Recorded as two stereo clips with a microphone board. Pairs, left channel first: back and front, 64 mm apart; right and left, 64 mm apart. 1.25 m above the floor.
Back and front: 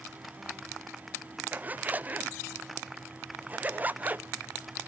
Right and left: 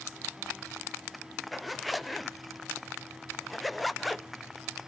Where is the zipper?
Straight ahead, 0.6 m.